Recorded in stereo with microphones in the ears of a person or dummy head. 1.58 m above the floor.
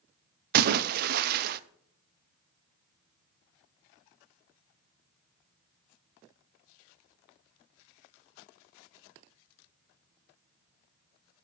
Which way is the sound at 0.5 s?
60° right (ahead or behind).